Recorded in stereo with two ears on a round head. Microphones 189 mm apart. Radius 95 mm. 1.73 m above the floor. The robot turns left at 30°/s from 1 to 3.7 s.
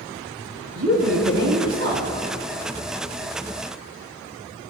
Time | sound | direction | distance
0.8 | a woman speaking | 90° right | 4 m